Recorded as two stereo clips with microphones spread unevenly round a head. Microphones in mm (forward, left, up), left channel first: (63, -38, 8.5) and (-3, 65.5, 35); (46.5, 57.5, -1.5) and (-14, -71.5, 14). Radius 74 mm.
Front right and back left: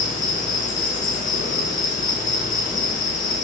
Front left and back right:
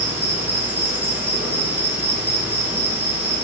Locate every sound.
0.0 s an insect: 40° right, 1.6 m